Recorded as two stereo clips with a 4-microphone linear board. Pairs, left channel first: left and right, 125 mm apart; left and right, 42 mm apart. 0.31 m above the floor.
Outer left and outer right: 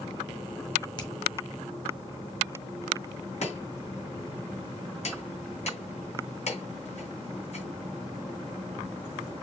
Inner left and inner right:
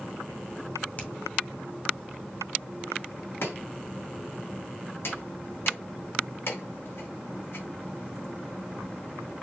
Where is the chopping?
60° left (ahead or behind), 3 m.